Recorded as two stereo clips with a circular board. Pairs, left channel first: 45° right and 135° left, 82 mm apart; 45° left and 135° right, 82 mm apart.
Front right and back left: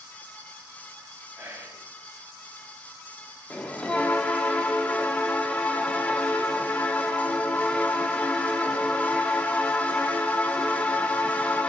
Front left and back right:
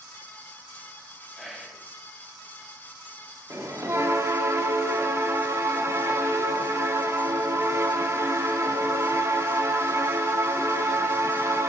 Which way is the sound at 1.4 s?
135° left.